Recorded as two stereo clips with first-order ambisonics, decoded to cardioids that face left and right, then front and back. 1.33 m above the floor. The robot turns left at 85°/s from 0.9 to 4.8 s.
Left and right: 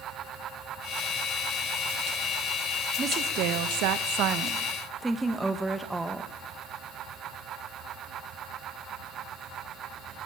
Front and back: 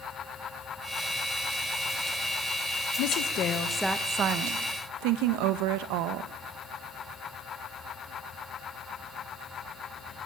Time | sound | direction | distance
3.0 | a woman speaking | 20° right | 1.8 m